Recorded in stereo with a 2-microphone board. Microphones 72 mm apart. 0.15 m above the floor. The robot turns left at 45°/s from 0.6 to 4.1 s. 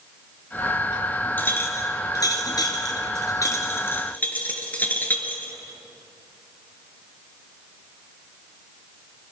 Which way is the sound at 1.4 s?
25° left (ahead or behind).